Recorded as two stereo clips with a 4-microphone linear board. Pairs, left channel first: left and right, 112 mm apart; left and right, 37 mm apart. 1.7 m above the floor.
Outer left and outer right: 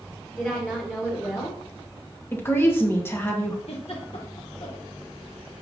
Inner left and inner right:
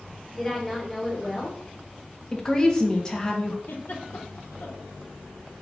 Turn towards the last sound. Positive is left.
turn(degrees=65)  # may be behind; listen again after turning